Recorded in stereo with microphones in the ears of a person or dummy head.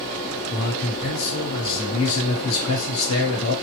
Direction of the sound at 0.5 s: 90° left.